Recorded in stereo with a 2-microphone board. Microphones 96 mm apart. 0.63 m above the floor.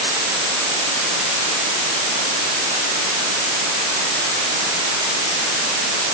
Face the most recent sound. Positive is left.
No sound to turn to.